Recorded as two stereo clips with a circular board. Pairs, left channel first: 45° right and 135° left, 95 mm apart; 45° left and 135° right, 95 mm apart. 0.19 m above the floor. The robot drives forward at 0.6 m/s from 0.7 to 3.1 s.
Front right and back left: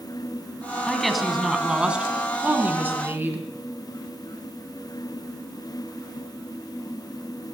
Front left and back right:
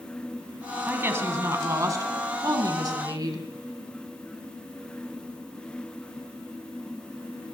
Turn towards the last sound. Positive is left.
turn(degrees=-165)